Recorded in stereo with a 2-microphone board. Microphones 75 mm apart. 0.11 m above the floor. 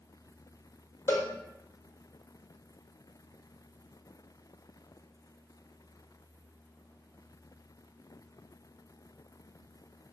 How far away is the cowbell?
About 1.1 m.